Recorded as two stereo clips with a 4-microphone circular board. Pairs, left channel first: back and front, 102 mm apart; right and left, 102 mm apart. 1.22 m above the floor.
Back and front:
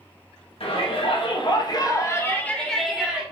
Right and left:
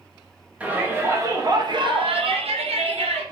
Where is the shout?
165° left, 1.3 m; by 3.2 s 80° left, 1.2 m.